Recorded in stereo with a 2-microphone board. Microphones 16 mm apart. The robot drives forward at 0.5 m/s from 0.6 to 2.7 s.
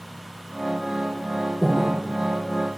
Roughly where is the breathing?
Centre.